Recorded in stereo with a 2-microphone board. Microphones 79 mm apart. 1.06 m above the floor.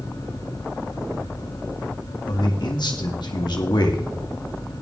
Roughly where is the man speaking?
Left.